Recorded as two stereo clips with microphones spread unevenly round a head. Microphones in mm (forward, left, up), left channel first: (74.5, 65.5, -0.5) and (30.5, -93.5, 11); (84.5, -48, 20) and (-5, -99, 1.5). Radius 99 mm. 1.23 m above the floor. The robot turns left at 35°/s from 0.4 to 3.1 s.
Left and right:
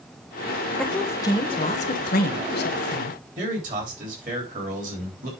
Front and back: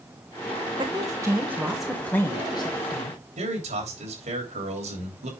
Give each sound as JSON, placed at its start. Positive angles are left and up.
{"t": 0.8, "sound": "a woman speaking", "azimuth_deg": 160, "distance_m": 0.9}
{"t": 3.4, "sound": "a man speaking", "azimuth_deg": -160, "distance_m": 3.0}